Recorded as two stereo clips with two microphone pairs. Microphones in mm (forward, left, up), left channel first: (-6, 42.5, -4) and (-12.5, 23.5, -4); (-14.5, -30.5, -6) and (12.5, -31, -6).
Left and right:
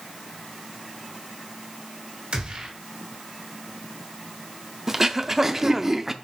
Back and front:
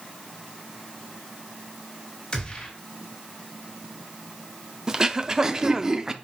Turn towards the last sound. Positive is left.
turn(degrees=-50)